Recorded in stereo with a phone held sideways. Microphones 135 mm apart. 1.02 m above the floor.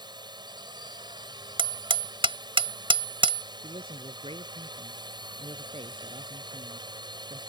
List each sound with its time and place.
0.0 s a drone: 35° right (ahead or behind)
1.6 s hammering: 45° right (ahead or behind)
3.6 s a man speaking: 45° right (ahead or behind)